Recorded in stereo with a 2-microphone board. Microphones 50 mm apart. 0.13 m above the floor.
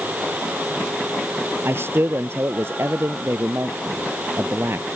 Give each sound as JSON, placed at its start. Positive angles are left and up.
{"t": 1.6, "sound": "a man speaking", "side_deg": -55}